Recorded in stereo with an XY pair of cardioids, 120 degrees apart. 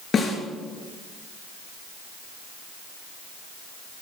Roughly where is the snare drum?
Ahead left.